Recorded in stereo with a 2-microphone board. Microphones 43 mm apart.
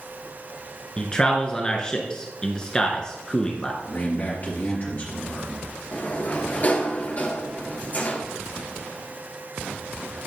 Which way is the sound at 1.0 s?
20° left (ahead or behind).